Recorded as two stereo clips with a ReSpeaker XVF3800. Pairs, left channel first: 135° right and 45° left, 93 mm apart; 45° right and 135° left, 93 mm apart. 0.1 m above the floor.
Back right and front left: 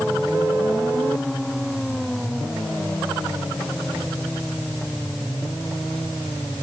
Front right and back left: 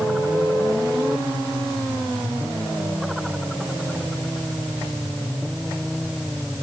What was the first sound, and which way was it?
Only background noise.